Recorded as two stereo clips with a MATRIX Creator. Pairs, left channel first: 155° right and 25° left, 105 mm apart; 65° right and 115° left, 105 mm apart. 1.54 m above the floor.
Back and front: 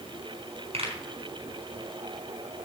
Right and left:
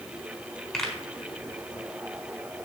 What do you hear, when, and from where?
0.7 s a pop: 15° left, 4 m